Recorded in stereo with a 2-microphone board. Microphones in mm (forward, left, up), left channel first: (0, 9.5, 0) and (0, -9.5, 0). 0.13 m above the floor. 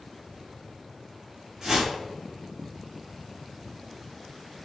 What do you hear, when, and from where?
1.6 s a whoosh: 30° right (ahead or behind), 1.4 m